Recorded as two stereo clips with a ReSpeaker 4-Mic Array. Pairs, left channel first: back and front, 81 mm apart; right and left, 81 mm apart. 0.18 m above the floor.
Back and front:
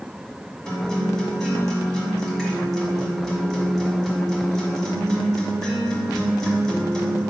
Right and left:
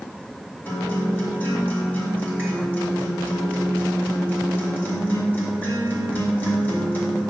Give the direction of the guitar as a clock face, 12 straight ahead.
4 o'clock.